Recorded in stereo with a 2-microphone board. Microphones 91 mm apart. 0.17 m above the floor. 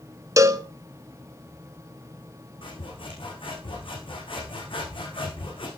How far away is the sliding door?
I don't hear a sliding door.